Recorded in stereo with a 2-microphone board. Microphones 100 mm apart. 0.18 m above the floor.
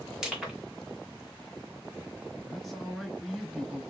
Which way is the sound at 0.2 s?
5° right (ahead or behind).